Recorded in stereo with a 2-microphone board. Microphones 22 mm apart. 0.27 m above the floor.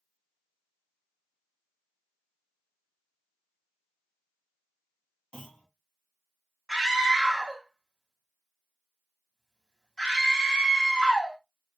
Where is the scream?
30° left (ahead or behind), 2.0 m.